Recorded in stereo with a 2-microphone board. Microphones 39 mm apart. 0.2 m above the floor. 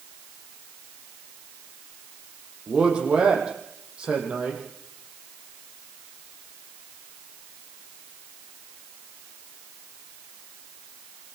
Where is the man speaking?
25° right (ahead or behind), 8.5 m.